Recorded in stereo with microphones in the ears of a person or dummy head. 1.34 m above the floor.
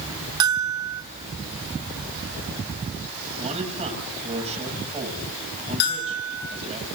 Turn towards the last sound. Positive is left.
turn(degrees=55)  # may be behind; listen again after turning